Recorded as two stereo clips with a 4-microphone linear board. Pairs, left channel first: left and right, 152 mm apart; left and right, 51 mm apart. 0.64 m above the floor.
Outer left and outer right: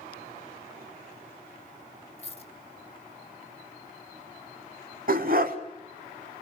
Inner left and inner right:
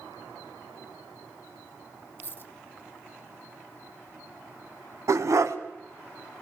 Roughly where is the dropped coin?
Left.